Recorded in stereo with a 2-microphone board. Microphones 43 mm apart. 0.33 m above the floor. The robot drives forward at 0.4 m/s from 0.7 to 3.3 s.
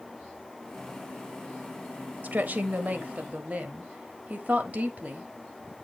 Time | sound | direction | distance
2.2 | a woman speaking | 45° right (ahead or behind) | 1.1 m